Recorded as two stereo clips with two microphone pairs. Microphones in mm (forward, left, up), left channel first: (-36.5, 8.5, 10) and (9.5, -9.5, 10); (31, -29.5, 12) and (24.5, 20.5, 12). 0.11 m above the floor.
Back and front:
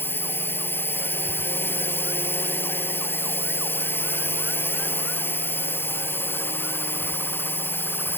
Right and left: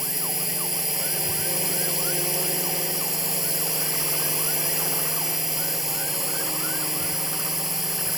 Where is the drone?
175° right.